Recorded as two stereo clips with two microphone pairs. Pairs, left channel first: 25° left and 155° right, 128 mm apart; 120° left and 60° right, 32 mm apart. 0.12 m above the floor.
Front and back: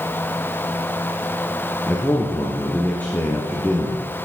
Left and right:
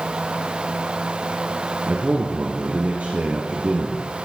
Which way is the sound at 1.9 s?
50° right.